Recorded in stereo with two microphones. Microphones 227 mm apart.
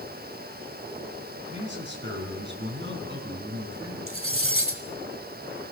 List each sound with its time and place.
1.5 s a man speaking: 50° right (ahead or behind), 5 m
4.1 s cutlery clinking: 70° right (ahead or behind), 1.5 m